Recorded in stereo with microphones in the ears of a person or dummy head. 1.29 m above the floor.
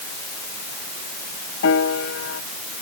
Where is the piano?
75° left (ahead or behind).